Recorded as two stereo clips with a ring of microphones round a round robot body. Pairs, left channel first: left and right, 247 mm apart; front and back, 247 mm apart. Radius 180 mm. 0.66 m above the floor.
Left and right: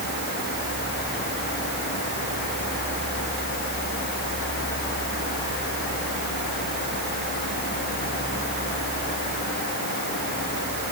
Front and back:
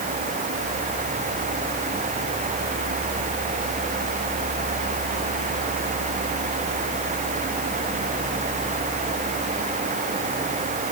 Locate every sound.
Only background noise.